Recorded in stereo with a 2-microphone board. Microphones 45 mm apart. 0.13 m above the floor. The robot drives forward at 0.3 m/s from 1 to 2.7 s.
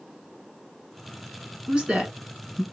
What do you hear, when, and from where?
1.7 s a woman speaking: 20° right (ahead or behind), 1.3 m